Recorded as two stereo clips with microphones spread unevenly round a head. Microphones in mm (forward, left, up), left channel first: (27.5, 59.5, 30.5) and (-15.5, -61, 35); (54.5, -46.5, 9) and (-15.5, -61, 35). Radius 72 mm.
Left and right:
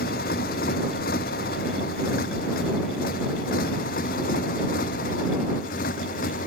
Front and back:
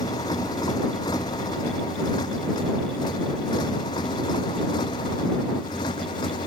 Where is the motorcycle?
65° left; by 6.5 s 50° left.